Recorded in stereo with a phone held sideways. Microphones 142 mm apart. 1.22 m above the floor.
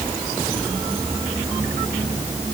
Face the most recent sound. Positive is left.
No sound to turn to.